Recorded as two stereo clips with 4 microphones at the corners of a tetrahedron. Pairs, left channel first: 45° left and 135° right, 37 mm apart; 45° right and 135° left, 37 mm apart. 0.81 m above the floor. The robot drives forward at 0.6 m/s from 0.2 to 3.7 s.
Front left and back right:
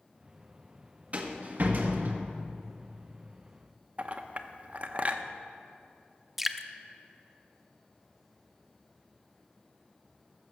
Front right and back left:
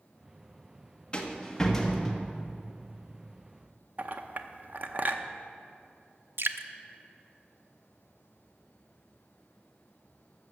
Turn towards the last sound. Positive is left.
turn(degrees=140)